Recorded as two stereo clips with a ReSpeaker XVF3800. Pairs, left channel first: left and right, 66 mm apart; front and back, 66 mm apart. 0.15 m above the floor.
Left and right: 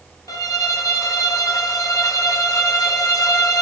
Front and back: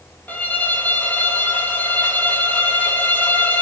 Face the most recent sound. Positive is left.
turn(degrees=60)